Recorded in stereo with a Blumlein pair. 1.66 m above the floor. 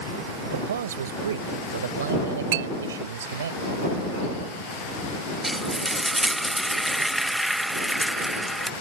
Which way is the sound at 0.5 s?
65° right.